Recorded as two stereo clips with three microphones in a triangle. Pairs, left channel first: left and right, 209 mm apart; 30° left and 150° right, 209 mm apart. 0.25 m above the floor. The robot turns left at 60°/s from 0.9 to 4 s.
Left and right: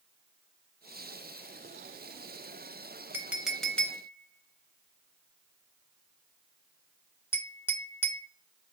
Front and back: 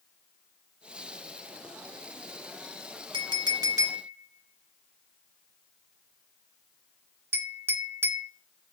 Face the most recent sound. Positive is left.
turn(degrees=155)